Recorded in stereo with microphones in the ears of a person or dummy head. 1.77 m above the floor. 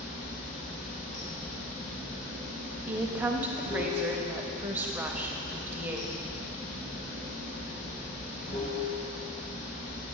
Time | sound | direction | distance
0.0 | running water | 35° left (ahead or behind) | 1.6 m
2.9 | a woman speaking | 10° right (ahead or behind) | 0.6 m